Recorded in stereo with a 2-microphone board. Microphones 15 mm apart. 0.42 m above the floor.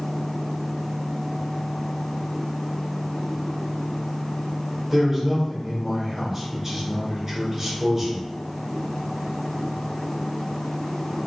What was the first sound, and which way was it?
A man speaking, 15° right (ahead or behind).